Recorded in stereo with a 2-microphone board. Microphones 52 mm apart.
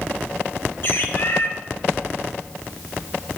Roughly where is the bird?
Left.